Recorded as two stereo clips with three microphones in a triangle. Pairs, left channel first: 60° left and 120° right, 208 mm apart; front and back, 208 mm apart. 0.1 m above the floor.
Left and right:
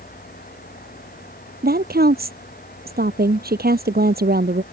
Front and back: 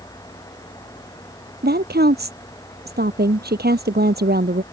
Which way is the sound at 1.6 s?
150° right.